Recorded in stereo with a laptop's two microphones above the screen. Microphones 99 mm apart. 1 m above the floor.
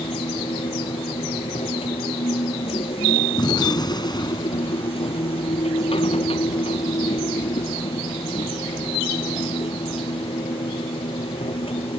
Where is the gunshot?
45° left (ahead or behind).